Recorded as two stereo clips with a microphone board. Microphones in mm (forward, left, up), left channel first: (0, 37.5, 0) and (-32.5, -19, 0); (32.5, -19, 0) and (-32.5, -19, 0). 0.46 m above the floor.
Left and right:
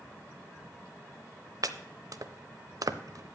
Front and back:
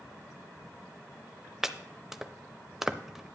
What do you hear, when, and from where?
1.6 s chopping: 95° right, 0.6 m